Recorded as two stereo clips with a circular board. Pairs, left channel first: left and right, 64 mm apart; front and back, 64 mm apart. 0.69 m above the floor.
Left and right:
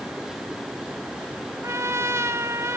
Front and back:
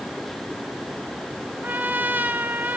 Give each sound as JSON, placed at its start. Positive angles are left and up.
{"t": 1.6, "sound": "a trumpet", "azimuth_deg": -125, "distance_m": 1.0}